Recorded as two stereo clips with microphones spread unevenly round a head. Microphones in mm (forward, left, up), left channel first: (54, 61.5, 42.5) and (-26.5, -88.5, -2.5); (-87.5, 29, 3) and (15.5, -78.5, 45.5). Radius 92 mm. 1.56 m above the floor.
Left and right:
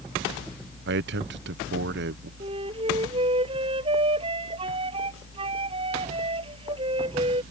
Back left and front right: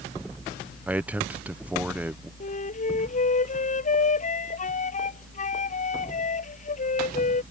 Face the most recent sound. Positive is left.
turn(degrees=175)